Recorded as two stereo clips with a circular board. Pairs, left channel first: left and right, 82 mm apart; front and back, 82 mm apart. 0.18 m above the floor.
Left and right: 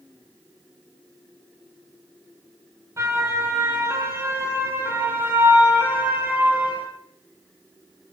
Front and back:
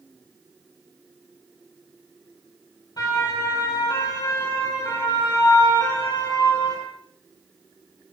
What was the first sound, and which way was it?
A siren, 35° right.